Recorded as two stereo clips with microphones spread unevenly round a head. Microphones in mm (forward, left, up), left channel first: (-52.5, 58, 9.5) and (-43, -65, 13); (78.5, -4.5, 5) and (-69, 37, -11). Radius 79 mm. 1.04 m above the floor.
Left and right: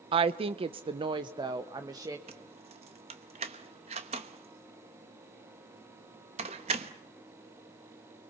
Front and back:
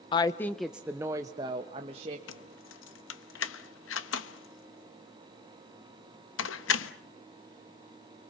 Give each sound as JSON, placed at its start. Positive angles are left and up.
{"t": 0.1, "sound": "a woman speaking", "azimuth_deg": -70, "distance_m": 0.6}
{"t": 2.3, "sound": "keys jangling", "azimuth_deg": -30, "distance_m": 1.0}